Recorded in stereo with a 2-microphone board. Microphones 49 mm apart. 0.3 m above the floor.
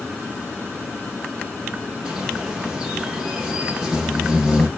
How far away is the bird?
About 5 m.